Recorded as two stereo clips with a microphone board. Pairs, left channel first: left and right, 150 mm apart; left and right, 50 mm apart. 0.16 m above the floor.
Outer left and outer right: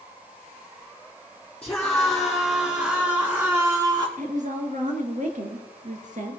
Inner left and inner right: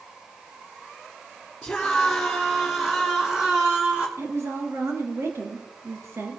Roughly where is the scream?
Centre.